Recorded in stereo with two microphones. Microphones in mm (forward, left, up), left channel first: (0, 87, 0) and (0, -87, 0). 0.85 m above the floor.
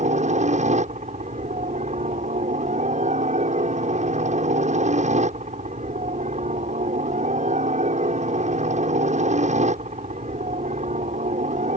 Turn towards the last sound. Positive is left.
turn(degrees=-45)  # may be behind; listen again after turning